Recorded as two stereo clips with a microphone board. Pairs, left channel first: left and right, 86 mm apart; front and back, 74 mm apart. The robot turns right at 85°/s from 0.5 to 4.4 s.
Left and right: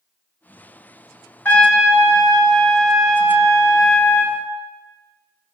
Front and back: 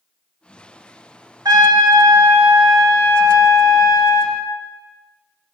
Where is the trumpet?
155° left, 0.7 m; by 4.4 s 45° left, 0.7 m.